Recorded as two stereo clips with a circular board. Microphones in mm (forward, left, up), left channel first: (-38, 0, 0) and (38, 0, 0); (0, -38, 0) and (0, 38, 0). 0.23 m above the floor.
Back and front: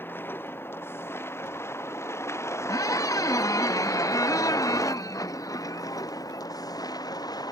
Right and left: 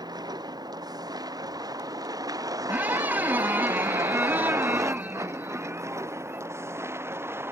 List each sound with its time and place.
0.0 s a vehicle: 120° left; by 7.5 s 150° left
2.7 s a squeak: 155° left